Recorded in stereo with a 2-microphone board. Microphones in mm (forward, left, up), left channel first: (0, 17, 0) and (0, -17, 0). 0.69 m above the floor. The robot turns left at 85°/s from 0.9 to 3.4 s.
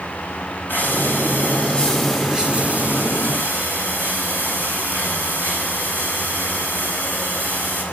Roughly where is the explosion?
I don't hear an explosion.